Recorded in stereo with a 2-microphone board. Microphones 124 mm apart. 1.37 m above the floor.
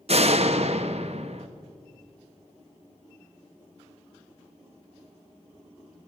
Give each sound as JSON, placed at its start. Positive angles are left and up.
{"t": 0.1, "sound": "a door slam", "side_deg": -55, "distance_m": 1.2}